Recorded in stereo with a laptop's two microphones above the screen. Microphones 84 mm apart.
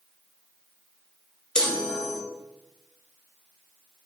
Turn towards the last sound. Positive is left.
turn(degrees=10)  # may be behind; listen again after turning